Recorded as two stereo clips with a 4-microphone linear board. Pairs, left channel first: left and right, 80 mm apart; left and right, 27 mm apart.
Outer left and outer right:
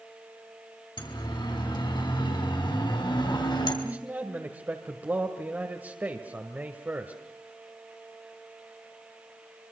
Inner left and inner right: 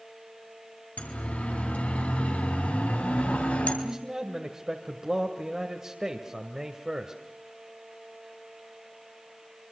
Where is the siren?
70° left (ahead or behind), 5 m.